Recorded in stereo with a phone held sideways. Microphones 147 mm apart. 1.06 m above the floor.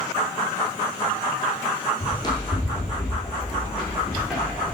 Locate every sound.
2.0 s running footsteps: 35° left (ahead or behind), 1.8 m; by 4.8 s 5° right (ahead or behind), 3.5 m